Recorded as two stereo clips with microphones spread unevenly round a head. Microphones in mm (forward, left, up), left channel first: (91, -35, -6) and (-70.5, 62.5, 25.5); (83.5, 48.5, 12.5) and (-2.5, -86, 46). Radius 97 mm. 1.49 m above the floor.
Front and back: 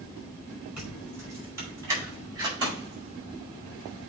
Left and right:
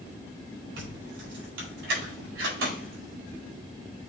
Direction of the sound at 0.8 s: 130° right.